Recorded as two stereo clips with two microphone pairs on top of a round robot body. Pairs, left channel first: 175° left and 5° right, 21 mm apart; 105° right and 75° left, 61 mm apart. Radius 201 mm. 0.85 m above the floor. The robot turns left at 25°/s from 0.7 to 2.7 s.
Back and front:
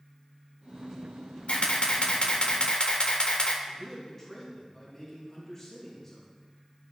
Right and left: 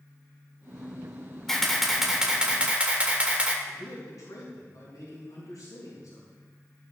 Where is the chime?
I don't hear a chime.